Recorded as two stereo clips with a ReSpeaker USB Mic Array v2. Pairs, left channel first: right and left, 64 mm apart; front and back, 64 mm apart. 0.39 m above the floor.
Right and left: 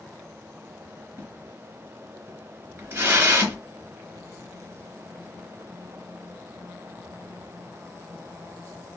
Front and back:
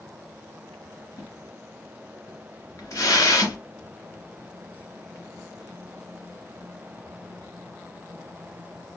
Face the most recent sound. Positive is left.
turn(degrees=40)